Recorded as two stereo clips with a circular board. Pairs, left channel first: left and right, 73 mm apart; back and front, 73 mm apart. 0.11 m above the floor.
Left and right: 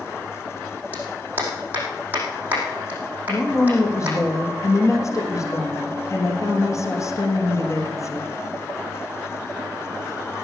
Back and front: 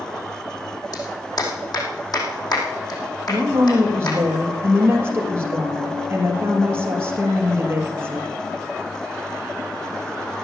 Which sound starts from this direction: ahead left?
A woman speaking, at 3.3 s.